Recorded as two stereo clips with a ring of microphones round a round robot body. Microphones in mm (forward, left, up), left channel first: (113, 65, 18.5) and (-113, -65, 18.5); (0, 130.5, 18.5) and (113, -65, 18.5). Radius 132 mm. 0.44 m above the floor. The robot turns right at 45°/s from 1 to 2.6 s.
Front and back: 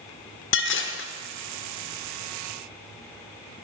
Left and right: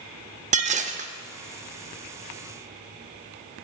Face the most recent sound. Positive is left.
turn(degrees=65)